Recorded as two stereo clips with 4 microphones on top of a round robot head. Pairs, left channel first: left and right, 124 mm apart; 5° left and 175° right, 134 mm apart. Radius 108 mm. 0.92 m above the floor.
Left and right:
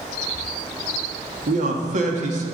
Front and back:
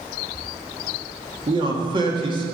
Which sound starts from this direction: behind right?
A man speaking, at 1.5 s.